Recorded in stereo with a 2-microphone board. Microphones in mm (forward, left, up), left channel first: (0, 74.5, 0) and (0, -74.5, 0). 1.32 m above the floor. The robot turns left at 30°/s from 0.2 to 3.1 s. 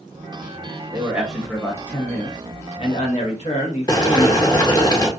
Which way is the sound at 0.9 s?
165° right.